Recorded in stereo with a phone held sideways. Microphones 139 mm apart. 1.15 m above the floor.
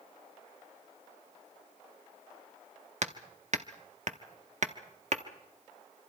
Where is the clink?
I don't hear a clink.